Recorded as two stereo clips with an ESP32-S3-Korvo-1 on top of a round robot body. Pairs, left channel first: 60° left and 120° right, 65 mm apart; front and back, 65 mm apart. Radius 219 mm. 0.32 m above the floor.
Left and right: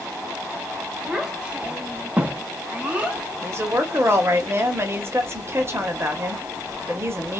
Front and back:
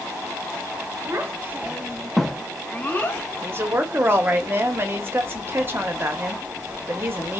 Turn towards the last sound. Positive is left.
turn(degrees=-145)